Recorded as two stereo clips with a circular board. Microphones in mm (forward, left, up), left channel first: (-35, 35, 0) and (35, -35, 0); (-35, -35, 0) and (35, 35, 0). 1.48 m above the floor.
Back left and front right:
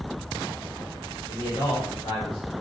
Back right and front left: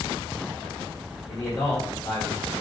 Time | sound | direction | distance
1.3 | a man speaking | 160° left | 1.1 m